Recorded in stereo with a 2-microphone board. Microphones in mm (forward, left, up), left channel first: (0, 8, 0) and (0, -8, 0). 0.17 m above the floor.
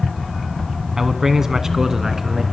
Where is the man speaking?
30° right (ahead or behind), 1.4 m; by 2.4 s 25° right (ahead or behind), 1.9 m.